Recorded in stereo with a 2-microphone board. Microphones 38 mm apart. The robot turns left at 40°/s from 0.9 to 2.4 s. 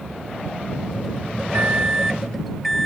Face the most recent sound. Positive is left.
turn(degrees=180)